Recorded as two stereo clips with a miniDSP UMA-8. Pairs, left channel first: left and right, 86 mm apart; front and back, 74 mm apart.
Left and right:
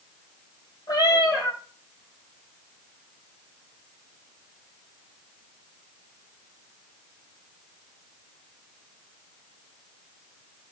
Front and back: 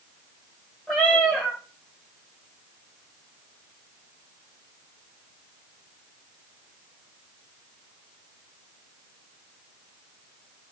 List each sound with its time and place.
0.9 s a cat meowing: 70° left, 1.6 m